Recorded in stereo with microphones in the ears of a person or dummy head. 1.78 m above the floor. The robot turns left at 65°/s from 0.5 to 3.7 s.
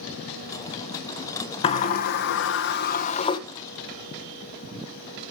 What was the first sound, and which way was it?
A sliding door, 140° left.